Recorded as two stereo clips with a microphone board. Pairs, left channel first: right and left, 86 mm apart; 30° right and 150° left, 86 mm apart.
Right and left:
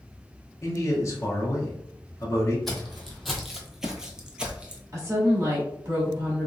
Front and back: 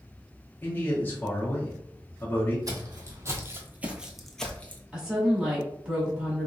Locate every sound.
0.6 s a man speaking: 75° right, 0.9 m
2.7 s footsteps: 175° right, 1.0 m; by 4.8 s 20° left, 0.7 m
4.9 s a woman speaking: 75° left, 1.4 m